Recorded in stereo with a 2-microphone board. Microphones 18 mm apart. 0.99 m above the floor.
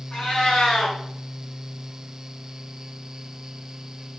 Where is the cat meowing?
70° left (ahead or behind), 3.5 m.